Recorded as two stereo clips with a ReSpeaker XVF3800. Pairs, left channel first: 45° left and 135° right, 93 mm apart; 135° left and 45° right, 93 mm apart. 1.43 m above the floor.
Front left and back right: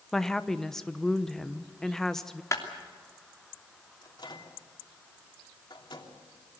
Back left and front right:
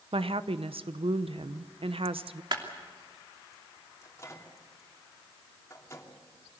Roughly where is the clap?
Ahead.